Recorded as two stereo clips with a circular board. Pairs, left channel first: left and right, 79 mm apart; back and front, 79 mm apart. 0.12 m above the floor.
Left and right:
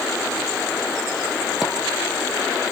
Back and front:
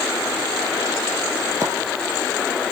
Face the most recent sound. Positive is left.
turn(degrees=-5)